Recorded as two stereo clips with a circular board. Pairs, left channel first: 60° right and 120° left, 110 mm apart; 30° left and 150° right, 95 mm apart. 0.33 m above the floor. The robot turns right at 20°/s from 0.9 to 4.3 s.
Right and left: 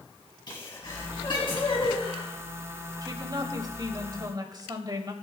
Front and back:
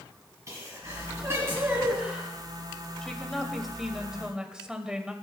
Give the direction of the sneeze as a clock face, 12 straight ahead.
3 o'clock.